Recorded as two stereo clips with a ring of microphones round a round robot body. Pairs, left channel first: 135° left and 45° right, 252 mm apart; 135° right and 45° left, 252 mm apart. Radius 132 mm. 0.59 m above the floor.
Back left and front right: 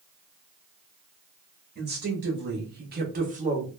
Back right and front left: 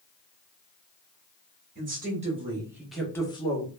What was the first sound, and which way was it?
A woman speaking, 5° right.